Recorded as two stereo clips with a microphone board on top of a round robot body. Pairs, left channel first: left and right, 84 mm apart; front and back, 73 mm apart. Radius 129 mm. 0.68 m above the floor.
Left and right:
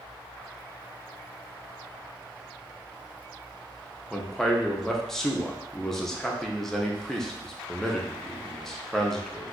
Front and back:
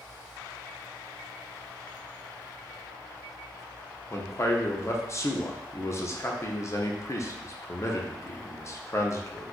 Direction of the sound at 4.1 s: 5° left.